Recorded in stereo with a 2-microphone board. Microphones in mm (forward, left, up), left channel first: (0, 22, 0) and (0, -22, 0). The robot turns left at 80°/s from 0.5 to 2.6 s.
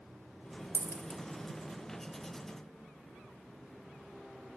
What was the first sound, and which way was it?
A dropped coin, 85° left.